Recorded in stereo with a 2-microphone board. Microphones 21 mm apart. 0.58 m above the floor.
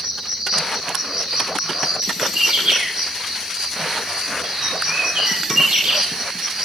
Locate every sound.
0.0 s an insect: 30° right (ahead or behind), 2 m
2.4 s a bird: 80° right, 6 m